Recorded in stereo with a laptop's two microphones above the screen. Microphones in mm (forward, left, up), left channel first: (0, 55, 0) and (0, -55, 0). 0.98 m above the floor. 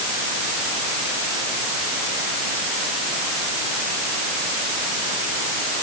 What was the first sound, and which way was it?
Only background noise.